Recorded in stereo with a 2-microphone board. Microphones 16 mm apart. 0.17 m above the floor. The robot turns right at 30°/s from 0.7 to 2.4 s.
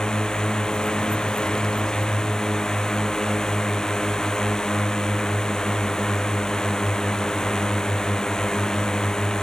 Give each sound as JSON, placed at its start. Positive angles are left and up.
{"t": 0.0, "sound": "a drone", "azimuth_deg": 70}